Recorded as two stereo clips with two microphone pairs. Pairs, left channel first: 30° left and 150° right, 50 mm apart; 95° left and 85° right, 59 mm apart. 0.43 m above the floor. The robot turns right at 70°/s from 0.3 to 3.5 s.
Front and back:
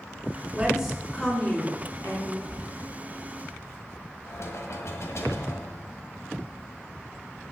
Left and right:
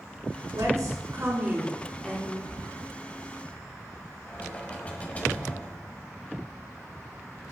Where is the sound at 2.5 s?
85° right, 2.5 m; by 2.6 s 75° right, 2.5 m.